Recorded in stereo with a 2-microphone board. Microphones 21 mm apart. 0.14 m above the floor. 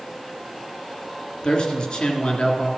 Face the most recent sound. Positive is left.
turn(degrees=45)  # may be behind; listen again after turning